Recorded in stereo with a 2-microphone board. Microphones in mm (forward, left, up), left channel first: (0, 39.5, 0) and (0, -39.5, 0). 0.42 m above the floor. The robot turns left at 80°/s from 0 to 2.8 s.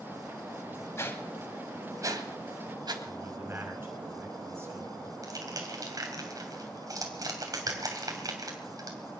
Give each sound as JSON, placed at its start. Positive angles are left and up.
{"t": 1.0, "sound": "a whoosh", "side_deg": 35, "distance_m": 1.6}
{"t": 3.0, "sound": "a man speaking", "side_deg": -30, "distance_m": 5.5}
{"t": 5.2, "sound": "crushing", "side_deg": -50, "distance_m": 3.0}